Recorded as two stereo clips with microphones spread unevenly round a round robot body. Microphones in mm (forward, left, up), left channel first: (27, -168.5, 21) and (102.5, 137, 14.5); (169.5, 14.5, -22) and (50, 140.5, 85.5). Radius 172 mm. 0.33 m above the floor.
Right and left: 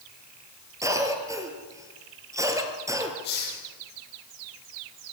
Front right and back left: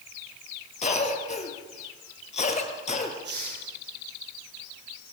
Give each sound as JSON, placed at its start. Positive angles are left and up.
{"t": 0.8, "sound": "a cough", "azimuth_deg": -5, "distance_m": 6.5}
{"t": 3.2, "sound": "a hiss", "azimuth_deg": -165, "distance_m": 8.0}